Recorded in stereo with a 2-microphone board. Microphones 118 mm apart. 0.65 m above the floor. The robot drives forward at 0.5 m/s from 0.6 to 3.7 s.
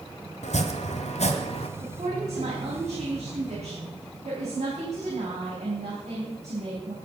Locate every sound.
0.4 s chopping: 80° left, 1.3 m; by 1.7 s 60° left (ahead or behind), 1.5 m
1.8 s a woman speaking: 75° right (ahead or behind), 4 m; by 7.0 s 80° right, 4 m